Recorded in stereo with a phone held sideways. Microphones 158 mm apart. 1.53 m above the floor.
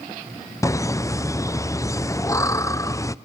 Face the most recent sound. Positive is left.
turn(degrees=20)  # may be behind; listen again after turning